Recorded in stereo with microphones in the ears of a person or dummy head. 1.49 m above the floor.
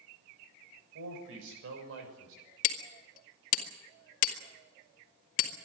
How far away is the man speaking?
About 7 m.